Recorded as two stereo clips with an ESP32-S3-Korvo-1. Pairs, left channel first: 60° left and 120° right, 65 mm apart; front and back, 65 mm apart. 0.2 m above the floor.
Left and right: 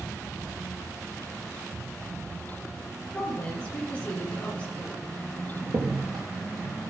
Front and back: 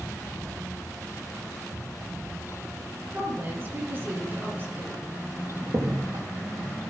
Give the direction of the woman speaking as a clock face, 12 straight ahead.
8 o'clock.